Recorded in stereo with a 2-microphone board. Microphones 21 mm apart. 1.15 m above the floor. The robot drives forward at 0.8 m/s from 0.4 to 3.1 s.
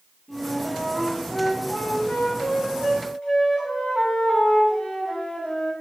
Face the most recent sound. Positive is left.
turn(degrees=55)  # may be behind; listen again after turning